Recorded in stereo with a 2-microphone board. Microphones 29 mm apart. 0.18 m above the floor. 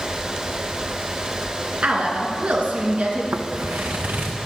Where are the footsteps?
80° right, 1.0 m; by 4.4 s 75° right (ahead or behind), 2.5 m.